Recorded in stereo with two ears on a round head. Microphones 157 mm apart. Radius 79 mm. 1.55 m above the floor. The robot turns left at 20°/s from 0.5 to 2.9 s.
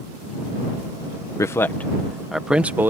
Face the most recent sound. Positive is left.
turn(degrees=-15)